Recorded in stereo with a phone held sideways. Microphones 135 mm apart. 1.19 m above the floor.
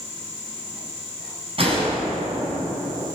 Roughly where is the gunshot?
Right.